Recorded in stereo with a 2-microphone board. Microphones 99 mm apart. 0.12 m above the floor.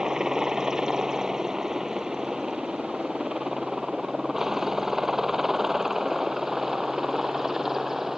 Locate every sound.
0.0 s a helicopter: 5° right (ahead or behind)